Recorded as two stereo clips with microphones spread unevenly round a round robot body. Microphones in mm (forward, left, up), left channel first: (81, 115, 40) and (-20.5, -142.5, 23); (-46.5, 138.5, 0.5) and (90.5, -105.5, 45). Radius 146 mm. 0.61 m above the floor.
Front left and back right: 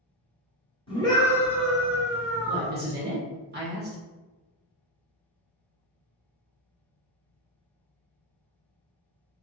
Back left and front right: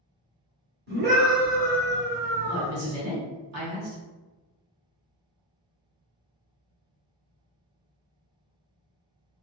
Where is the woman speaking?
75° right, 1.4 m.